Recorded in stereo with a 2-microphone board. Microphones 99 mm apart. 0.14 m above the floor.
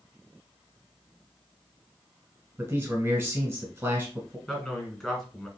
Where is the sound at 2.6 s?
20° right (ahead or behind), 1.1 m.